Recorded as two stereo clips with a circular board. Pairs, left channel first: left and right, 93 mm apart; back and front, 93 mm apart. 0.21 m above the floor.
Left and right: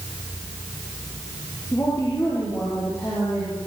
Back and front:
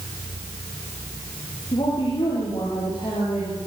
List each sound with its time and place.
1.7 s a woman speaking: 145° left, 7.5 m